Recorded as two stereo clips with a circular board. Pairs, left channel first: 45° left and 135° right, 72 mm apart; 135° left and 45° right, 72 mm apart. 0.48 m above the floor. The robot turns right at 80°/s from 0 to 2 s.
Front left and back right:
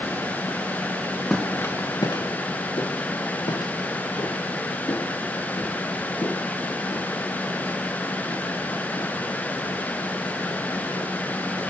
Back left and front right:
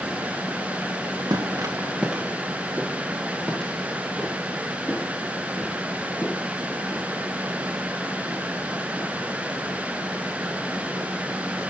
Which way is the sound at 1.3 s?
35° right.